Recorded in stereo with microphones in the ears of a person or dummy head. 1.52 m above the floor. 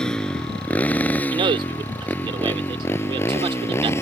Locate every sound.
0.0 s a motorcycle: 5° left (ahead or behind); by 4.0 s 10° left (ahead or behind)
1.3 s a man speaking: 30° right (ahead or behind)